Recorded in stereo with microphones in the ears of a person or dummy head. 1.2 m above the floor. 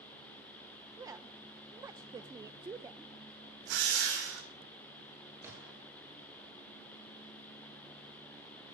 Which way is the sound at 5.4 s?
15° right (ahead or behind).